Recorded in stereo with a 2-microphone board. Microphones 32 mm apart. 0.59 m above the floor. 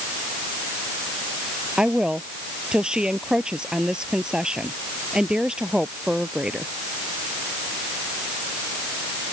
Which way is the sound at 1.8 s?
25° right (ahead or behind).